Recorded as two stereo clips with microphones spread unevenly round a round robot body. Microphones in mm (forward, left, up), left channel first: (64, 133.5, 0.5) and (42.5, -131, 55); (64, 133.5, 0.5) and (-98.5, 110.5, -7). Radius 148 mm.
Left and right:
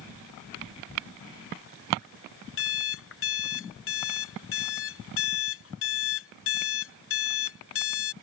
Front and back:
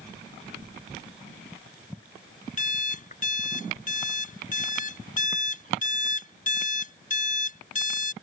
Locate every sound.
2.6 s an alarm clock: 45° left